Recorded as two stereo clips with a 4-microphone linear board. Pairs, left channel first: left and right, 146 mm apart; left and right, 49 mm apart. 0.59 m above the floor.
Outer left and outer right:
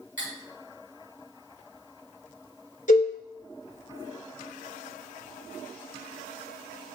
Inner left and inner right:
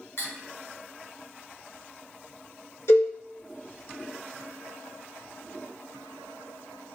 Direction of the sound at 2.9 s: 65° left (ahead or behind).